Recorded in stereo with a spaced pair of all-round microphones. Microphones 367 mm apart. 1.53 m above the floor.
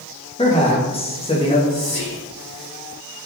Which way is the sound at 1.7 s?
80° left.